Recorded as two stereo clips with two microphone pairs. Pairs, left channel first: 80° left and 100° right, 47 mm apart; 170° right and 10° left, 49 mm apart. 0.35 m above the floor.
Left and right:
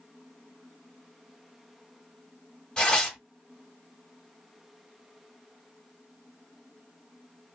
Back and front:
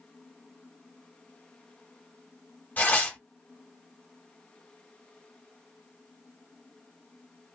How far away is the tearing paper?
About 1.3 m.